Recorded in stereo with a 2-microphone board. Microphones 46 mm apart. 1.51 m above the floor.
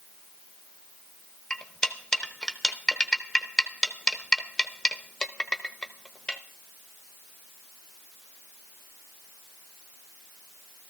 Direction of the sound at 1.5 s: 15° left (ahead or behind).